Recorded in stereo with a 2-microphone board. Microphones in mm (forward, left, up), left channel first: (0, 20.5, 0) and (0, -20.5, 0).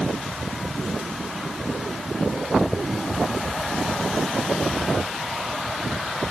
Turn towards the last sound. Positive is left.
No sound to turn to.